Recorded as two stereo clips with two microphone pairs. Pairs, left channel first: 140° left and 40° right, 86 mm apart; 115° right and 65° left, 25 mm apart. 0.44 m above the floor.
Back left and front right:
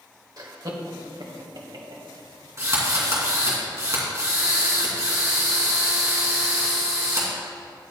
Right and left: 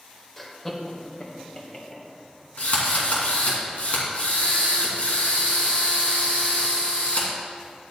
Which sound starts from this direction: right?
A drill, at 2.6 s.